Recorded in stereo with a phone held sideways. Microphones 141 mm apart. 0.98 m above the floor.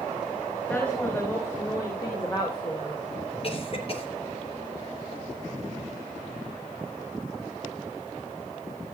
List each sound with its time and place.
0.7 s a woman speaking: 10° left (ahead or behind), 5.5 m; by 3.0 s 40° left (ahead or behind), 4 m
3.4 s a cough: 45° left (ahead or behind), 3.5 m